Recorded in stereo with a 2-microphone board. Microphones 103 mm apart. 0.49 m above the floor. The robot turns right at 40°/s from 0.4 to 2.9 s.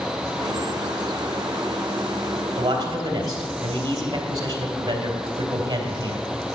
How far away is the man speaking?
About 2.5 m.